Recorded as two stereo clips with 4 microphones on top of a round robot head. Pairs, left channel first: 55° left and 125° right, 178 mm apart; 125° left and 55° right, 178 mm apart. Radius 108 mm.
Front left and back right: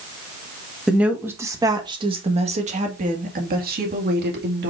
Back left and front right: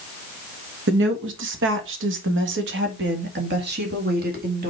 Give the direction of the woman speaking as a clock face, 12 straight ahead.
1 o'clock.